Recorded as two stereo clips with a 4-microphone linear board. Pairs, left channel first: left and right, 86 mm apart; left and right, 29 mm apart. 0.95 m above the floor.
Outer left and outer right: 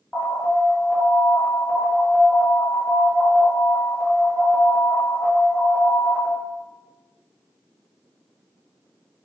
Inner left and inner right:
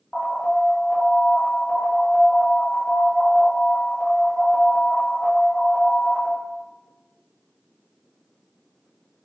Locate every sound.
0.1 s an alarm: 10° left (ahead or behind), 0.8 m